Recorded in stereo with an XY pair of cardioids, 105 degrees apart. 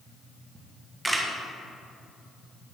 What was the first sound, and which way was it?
A camera shutter, 10° right.